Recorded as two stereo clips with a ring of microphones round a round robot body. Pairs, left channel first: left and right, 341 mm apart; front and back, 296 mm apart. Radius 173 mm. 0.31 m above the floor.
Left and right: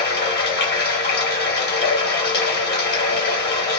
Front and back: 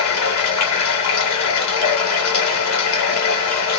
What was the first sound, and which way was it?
Running water, 30° left.